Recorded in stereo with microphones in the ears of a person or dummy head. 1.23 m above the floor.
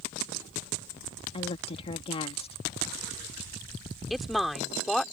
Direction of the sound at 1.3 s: 35° left (ahead or behind).